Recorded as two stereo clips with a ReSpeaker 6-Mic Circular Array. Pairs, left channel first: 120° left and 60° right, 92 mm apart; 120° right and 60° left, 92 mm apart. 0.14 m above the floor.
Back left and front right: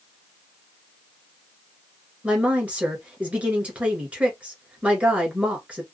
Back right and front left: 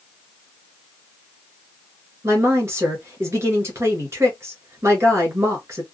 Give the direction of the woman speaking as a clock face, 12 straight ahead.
12 o'clock.